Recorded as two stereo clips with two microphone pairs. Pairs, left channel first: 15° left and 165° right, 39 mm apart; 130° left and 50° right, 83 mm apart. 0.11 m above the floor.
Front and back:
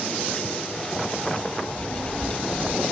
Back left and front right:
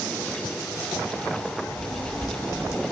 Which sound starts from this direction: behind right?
A child speaking, at 1.7 s.